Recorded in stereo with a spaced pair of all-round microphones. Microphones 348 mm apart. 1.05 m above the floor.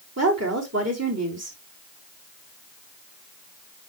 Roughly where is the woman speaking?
Right.